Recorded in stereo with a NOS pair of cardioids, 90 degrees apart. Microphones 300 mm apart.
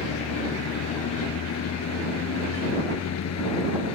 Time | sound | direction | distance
0.0 | a vehicle | 60° left | ?